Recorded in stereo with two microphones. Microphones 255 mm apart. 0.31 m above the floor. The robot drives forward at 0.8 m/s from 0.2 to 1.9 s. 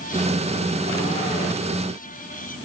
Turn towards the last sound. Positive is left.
No sound to turn to.